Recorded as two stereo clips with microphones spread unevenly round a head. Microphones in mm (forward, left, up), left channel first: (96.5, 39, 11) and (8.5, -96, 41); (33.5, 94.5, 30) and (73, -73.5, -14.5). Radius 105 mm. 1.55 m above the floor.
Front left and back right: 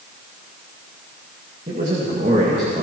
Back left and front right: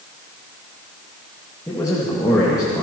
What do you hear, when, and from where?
1.7 s a man speaking: straight behind, 2 m